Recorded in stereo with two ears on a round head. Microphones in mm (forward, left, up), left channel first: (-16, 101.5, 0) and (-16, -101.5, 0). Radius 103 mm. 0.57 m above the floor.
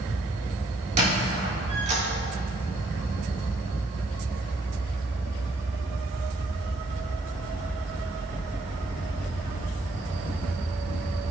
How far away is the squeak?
About 3 m.